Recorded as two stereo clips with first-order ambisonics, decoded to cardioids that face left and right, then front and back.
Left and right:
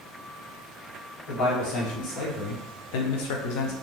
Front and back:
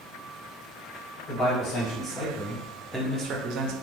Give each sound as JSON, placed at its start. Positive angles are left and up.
{"t": 1.3, "sound": "a man speaking", "azimuth_deg": 55, "distance_m": 1.3}